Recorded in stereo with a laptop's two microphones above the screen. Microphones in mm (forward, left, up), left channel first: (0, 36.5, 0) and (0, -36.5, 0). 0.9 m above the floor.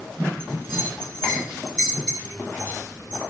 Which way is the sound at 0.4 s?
15° left (ahead or behind).